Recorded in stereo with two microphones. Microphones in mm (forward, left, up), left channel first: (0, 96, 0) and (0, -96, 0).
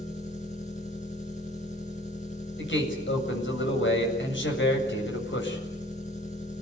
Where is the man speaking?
80° left, 8 m.